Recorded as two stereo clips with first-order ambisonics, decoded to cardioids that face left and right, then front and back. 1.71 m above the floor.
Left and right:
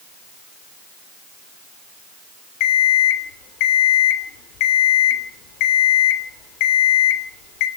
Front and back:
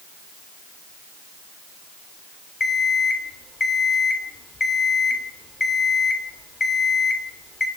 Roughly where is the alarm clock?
Left.